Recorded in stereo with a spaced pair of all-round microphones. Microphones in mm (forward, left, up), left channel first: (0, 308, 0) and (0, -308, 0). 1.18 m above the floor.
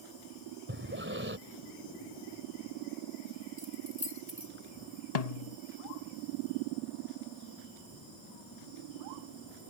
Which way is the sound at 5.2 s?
80° left.